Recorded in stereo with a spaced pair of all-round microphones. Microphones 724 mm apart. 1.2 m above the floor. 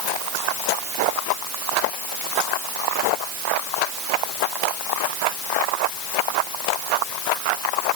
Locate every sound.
Only background noise.